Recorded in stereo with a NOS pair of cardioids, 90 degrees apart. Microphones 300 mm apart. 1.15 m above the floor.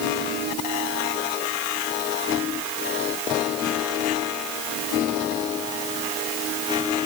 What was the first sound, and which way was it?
Only background noise.